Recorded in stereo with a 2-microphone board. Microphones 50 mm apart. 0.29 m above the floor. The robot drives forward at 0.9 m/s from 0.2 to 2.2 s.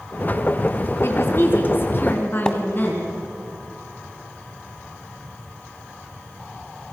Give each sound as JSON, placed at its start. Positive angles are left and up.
{"t": 1.0, "sound": "a woman speaking", "side_deg": 55, "distance_m": 3.0}
{"t": 2.5, "sound": "a splash", "side_deg": 15, "distance_m": 1.5}